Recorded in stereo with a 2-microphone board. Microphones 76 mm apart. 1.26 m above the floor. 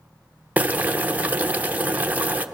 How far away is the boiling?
About 0.8 m.